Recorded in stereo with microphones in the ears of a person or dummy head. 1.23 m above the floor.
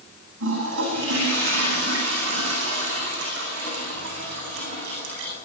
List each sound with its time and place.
0.4 s a toilet flushing: 65° right (ahead or behind), 9.5 m